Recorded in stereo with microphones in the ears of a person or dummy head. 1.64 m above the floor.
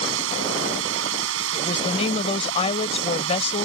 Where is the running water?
85° right.